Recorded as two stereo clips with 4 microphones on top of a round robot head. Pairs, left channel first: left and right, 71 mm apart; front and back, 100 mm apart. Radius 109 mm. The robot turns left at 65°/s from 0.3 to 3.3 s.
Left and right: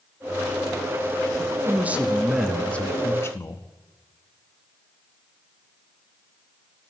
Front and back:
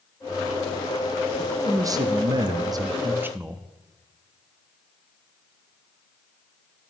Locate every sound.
1.4 s a man speaking: 115° right, 0.7 m; by 3.7 s 120° left, 0.7 m